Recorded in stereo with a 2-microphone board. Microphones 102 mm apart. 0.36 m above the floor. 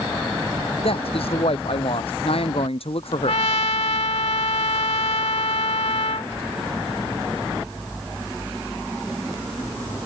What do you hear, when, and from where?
0.8 s a man speaking: 65° left (ahead or behind)
3.3 s a trumpet: 80° left